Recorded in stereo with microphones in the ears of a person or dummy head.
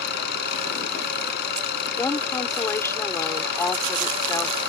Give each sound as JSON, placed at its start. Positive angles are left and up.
{"t": 0.0, "sound": "an engine running", "side_deg": 60}
{"t": 2.0, "sound": "a woman speaking", "side_deg": 15}